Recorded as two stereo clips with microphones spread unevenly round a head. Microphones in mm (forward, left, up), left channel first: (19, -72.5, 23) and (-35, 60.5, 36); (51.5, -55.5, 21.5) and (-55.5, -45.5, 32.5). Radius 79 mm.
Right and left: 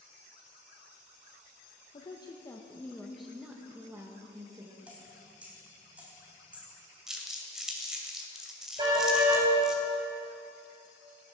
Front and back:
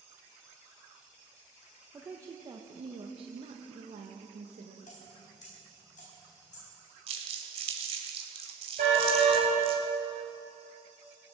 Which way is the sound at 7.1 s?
160° right.